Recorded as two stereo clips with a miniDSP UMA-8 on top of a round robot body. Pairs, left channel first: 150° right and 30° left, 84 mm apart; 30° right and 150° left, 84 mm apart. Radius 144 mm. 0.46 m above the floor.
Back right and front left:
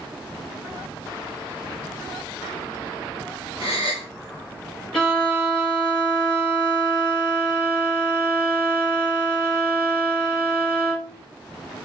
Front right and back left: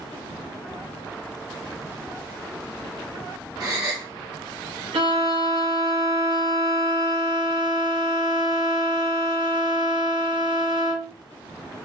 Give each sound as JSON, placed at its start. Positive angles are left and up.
{"t": 3.6, "sound": "a gasp", "azimuth_deg": -165, "distance_m": 1.0}
{"t": 4.9, "sound": "a violin", "azimuth_deg": 125, "distance_m": 1.1}